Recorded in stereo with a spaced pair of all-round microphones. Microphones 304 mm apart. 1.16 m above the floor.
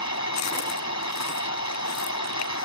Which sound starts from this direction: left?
A machine running, at 0.0 s.